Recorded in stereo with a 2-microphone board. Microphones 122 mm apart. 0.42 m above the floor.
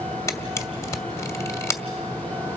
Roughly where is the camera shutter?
Left.